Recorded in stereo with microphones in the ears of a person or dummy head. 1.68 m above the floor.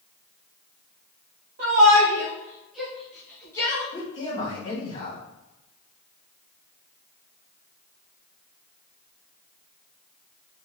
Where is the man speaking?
35° left (ahead or behind), 2.5 m.